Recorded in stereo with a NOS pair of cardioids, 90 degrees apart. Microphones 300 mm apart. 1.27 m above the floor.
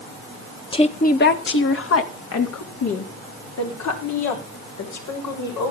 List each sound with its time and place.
0.7 s a woman speaking: 20° left, 1.7 m; by 5.7 s 75° left, 6.5 m